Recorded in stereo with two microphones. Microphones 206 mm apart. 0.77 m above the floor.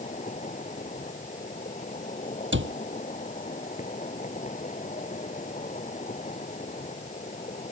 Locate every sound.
0.0 s an insect: 35° left (ahead or behind)
2.5 s a cupboard door: 65° right (ahead or behind)